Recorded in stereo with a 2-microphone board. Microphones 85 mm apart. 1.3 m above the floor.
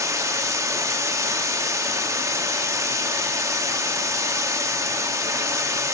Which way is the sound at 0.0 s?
35° right (ahead or behind).